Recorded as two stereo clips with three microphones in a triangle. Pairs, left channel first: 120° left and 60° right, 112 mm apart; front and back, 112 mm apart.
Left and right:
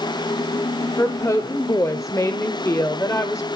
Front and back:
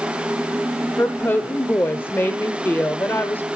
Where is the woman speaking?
70° left, 1.1 m.